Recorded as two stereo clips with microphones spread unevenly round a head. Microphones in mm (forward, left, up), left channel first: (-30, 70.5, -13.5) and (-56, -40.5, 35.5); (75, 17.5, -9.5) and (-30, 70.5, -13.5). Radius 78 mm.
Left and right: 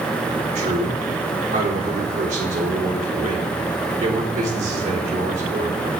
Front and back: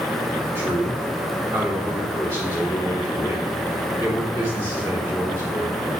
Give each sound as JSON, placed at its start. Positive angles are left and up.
{"t": 0.6, "sound": "a man speaking", "azimuth_deg": -90, "distance_m": 4.0}